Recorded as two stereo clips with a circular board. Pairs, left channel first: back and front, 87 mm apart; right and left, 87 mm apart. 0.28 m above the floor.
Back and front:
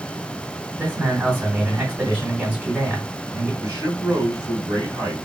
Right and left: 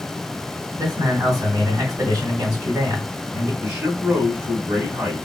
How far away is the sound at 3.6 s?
About 2.5 m.